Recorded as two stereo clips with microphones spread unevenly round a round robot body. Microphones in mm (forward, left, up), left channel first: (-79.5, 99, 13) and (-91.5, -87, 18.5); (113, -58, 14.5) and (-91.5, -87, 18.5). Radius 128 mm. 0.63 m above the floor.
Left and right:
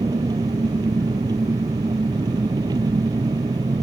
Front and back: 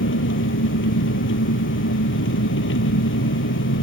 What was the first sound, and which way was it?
An engine running, 15° right.